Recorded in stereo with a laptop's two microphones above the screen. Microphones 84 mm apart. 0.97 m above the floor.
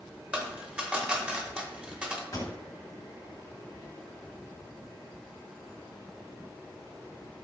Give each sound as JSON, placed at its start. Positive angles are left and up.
{"t": 0.3, "sound": "a dropped coin", "side_deg": -15, "distance_m": 0.6}
{"t": 2.3, "sound": "a pop", "side_deg": 40, "distance_m": 1.1}